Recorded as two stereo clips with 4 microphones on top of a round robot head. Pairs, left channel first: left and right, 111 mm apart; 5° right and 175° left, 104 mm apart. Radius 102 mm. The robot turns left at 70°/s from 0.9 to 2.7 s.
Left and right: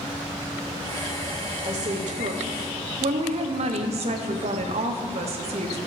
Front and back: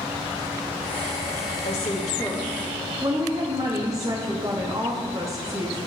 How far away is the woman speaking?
About 0.8 m.